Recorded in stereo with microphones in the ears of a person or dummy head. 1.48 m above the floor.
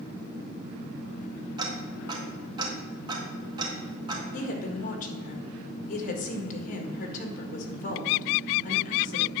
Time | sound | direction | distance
1.6 | ticking | 25° right (ahead or behind) | 1.7 m
4.3 | a woman speaking | 50° left (ahead or behind) | 1.5 m